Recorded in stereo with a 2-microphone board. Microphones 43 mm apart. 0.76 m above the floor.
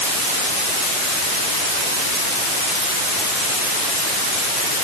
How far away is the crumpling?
I don't hear crumpling.